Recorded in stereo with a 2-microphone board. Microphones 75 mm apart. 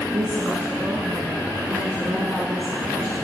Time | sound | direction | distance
0.1 | a woman speaking | 50° right (ahead or behind) | 2 m